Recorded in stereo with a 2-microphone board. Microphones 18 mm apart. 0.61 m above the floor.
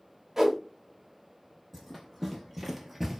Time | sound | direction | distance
0.4 | a whoosh | 25° right (ahead or behind) | 0.7 m
1.7 | running footsteps | centre (ahead or behind) | 1.2 m